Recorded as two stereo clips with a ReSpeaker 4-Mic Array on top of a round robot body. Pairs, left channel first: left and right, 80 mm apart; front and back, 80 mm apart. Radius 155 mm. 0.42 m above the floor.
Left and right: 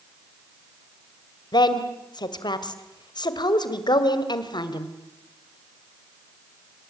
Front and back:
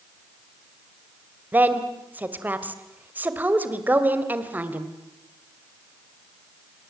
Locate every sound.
1.5 s a woman speaking: 110° left, 2.5 m